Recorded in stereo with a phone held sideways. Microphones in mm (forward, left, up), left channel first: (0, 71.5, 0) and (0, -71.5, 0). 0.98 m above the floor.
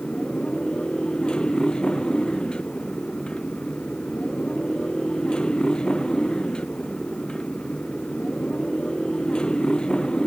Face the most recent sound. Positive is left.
turn(degrees=5)  # may be behind; listen again after turning